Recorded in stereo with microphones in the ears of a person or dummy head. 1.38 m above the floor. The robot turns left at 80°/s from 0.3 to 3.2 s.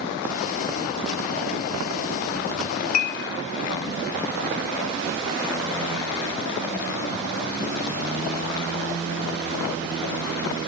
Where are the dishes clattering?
45° left (ahead or behind), 1.2 m; by 3.2 s 65° left (ahead or behind), 1.2 m.